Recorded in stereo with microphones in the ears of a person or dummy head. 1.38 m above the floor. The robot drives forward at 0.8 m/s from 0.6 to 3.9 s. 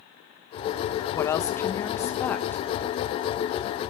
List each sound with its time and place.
1.1 s a woman speaking: 15° left (ahead or behind), 0.9 m; by 2.7 s 5° left (ahead or behind), 2 m